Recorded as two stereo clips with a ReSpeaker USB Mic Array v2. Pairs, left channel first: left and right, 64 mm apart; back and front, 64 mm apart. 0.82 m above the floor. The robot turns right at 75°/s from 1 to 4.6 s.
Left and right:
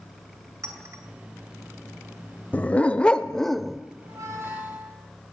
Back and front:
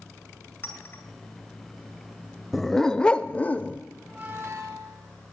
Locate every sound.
0.6 s a clink: 125° right, 2 m
2.5 s a dog barking: 90° left, 0.5 m; by 3.8 s 170° right, 0.5 m
4.0 s a squeak: 75° right, 2.5 m; by 5.0 s 30° right, 2.5 m